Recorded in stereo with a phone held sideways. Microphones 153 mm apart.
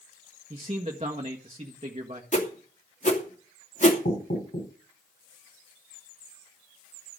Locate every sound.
0.5 s a man speaking: 40° right (ahead or behind), 1.7 m
2.3 s a whoosh: 55° left (ahead or behind), 2.5 m
4.0 s knocking: 70° left (ahead or behind), 7 m